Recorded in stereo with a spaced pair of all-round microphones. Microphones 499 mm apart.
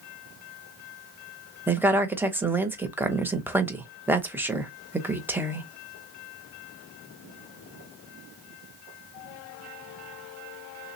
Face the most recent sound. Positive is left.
turn(degrees=-5)  # may be behind; listen again after turning